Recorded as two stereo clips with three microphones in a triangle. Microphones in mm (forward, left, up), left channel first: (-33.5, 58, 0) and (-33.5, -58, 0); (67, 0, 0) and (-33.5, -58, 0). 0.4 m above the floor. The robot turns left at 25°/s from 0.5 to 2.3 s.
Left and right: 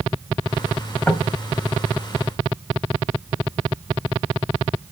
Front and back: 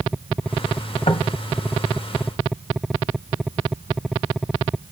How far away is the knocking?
About 1.9 m.